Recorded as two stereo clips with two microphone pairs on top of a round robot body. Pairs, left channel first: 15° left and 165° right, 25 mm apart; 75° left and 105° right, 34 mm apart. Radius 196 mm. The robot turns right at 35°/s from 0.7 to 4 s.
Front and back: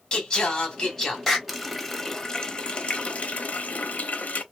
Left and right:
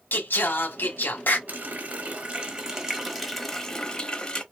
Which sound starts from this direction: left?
Singing, at 0.1 s.